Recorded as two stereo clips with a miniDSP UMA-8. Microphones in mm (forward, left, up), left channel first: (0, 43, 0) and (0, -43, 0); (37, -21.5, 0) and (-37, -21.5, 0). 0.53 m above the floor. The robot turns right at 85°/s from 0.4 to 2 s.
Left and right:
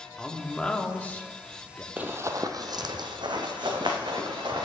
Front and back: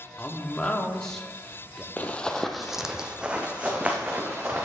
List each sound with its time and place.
0.2 s a man speaking: 15° left, 0.7 m; by 1.9 s 135° left, 0.7 m
2.0 s running footsteps: 40° right, 0.6 m; by 4.7 s 115° right, 2 m